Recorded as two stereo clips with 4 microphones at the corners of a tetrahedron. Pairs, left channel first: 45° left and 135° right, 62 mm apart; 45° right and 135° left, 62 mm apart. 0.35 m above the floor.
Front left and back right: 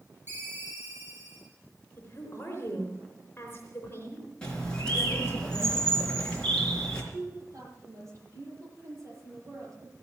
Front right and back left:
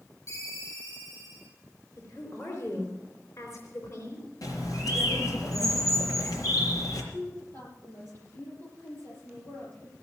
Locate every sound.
0.3 s a ringtone: 80° right, 6.5 m
2.0 s a woman speaking: 5° right, 4 m
4.4 s a bird: 30° right, 4 m
7.1 s a woman speaking: 95° right, 8.5 m